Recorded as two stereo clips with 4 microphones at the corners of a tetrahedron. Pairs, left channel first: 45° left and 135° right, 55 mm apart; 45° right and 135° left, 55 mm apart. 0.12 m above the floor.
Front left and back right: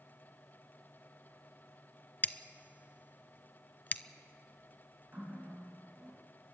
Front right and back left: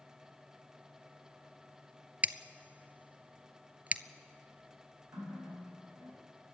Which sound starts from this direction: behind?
A running tap, at 5.1 s.